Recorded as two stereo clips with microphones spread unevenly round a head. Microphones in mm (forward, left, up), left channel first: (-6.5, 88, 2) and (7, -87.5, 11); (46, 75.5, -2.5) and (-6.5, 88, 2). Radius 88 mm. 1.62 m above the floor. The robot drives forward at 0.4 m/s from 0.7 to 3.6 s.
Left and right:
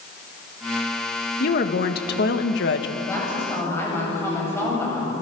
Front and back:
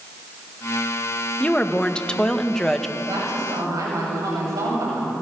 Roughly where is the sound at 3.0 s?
Behind.